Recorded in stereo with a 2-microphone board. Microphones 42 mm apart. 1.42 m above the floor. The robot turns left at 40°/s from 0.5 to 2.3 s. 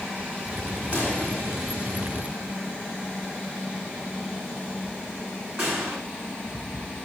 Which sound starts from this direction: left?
A pop, at 0.9 s.